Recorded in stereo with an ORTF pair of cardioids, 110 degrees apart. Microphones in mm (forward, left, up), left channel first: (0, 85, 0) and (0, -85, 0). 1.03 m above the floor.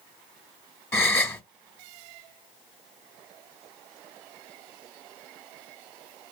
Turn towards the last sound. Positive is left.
turn(degrees=15)